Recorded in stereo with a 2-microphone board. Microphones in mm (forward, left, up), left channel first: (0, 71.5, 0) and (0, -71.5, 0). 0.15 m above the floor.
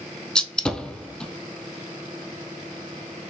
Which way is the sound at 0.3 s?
5° left (ahead or behind).